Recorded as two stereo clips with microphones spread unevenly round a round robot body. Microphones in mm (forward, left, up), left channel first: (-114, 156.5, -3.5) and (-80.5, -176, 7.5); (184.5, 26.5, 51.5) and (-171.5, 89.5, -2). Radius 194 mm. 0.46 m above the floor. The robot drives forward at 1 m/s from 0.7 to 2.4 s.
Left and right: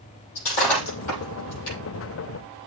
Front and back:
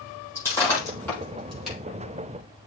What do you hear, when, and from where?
0.3 s breaking glass: 70° left, 7.5 m; by 1.8 s 80° left, 7 m